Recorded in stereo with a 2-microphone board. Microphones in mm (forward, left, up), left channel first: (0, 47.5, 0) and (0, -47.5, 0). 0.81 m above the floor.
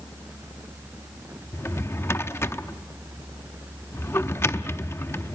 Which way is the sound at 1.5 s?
30° left (ahead or behind).